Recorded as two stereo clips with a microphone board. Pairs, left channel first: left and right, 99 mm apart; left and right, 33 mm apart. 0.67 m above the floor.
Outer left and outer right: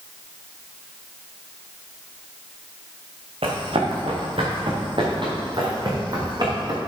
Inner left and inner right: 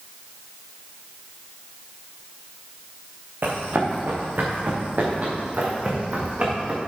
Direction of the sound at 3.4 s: 70° right (ahead or behind).